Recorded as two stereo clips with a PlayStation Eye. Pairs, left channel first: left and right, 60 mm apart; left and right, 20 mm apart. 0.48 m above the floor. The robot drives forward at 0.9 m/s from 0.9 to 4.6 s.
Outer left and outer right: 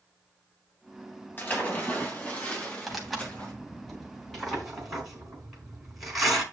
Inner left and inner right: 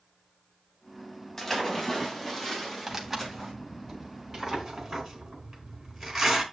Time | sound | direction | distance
1.4 | a splash | 35° left (ahead or behind) | 3 m
2.9 | tearing paper | centre (ahead or behind) | 2.5 m